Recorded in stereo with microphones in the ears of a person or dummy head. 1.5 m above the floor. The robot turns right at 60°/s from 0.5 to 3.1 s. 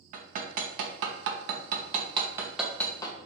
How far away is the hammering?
About 0.8 m.